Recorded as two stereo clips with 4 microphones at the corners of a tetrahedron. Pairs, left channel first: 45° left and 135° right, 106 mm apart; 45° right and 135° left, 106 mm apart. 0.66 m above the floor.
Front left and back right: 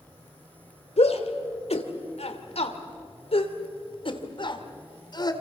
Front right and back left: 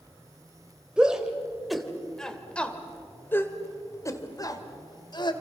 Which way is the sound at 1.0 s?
55° left.